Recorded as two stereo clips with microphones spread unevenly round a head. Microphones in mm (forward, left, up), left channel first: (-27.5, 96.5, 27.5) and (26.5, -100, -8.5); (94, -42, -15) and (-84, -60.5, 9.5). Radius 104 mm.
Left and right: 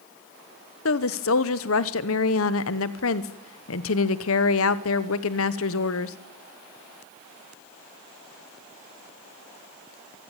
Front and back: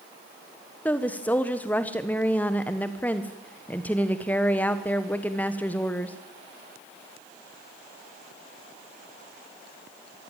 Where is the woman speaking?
90° left, 1.1 m.